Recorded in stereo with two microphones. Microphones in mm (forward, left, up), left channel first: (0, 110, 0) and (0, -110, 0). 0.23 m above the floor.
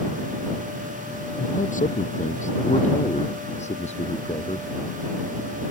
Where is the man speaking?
35° left (ahead or behind); by 4.7 s 30° left (ahead or behind).